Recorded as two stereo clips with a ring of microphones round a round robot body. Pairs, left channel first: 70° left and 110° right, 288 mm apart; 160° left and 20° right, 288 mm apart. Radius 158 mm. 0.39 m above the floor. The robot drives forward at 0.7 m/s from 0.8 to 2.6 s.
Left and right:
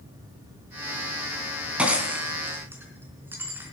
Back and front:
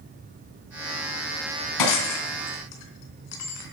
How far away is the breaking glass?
About 3 m.